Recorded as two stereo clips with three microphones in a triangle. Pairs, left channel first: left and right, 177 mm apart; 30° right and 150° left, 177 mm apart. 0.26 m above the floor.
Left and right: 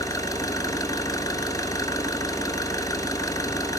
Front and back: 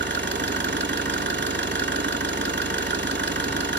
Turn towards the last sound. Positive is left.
turn(degrees=160)